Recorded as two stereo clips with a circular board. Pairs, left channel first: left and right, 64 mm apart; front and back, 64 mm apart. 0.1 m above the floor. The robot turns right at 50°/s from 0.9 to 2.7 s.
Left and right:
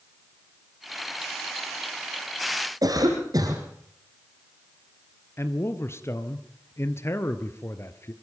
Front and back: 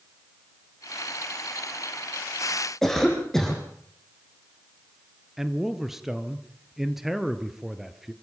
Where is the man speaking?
100° left, 1.5 m.